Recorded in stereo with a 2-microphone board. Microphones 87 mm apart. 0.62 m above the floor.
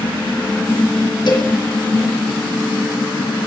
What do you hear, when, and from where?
1.3 s a cowbell: 60° left (ahead or behind), 4 m